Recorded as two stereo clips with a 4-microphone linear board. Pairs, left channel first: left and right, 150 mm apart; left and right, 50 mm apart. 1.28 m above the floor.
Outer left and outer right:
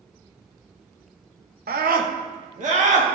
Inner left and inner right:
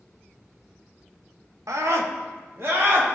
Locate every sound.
1.7 s a scream: 75° right (ahead or behind), 0.7 m; by 3.1 s 45° right (ahead or behind), 1.5 m